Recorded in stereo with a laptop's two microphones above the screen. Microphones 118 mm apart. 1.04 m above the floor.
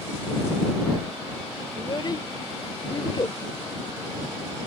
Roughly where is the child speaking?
Left.